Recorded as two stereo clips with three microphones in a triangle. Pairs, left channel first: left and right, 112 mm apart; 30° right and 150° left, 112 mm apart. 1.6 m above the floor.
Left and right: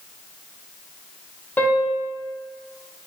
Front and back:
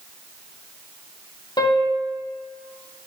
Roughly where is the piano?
Ahead.